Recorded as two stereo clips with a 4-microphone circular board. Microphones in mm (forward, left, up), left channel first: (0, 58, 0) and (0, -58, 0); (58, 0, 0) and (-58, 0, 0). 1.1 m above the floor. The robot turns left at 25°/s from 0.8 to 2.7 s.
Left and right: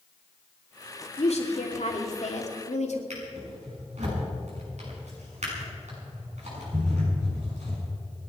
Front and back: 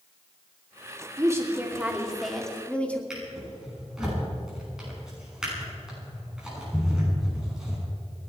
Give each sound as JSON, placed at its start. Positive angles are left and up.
{"t": 1.2, "sound": "a woman speaking", "azimuth_deg": 120, "distance_m": 2.5}
{"t": 3.1, "sound": "a drawer", "azimuth_deg": -95, "distance_m": 7.0}